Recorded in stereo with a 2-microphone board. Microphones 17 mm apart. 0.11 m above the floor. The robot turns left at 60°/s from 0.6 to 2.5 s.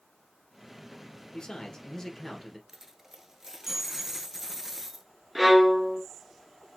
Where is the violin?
10° right (ahead or behind), 0.9 m.